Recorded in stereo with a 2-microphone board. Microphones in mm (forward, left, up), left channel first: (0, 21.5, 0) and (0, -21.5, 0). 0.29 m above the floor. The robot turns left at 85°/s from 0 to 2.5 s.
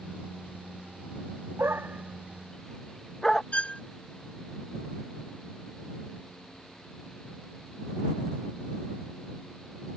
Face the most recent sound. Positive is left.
turn(degrees=30)  # may be behind; listen again after turning